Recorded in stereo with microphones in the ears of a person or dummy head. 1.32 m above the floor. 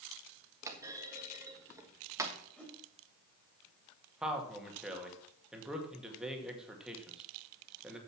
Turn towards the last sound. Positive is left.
turn(degrees=-5)  # may be behind; listen again after turning